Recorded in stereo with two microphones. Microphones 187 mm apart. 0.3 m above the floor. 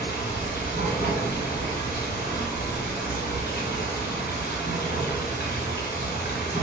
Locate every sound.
0.0 s running water: 70° left (ahead or behind), 1.6 m